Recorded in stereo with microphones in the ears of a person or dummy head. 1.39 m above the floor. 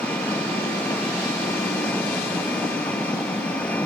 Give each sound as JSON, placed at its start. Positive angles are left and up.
{"t": 0.0, "sound": "an engine running", "side_deg": 10}